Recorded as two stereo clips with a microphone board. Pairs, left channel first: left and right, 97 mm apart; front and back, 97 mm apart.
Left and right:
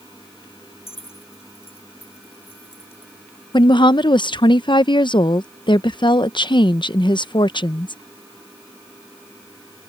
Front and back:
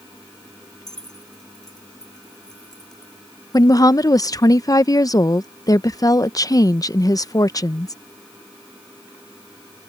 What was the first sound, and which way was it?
Keys jangling, 85° left.